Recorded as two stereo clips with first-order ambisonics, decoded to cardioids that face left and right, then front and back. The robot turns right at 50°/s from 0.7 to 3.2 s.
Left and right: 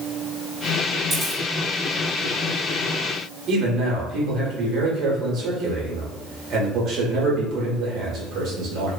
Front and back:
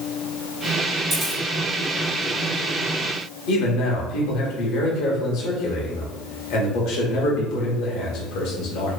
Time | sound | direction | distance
1.1 | a camera shutter | 125° right | 1.4 m
3.5 | a man speaking | 40° right | 1.0 m